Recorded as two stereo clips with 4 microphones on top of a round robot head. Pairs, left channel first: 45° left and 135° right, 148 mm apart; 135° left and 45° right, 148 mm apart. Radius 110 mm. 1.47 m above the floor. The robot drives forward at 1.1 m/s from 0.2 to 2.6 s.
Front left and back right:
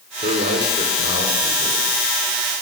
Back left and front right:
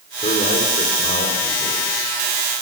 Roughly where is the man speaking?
Behind.